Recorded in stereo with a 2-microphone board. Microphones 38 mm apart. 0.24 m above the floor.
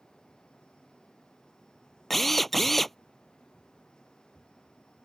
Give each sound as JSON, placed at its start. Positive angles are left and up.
{"t": 2.1, "sound": "a drill", "side_deg": 5}